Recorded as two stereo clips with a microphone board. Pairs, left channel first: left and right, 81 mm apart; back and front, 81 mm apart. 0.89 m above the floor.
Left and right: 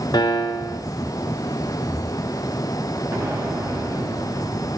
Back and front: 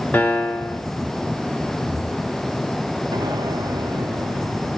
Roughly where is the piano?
Behind left.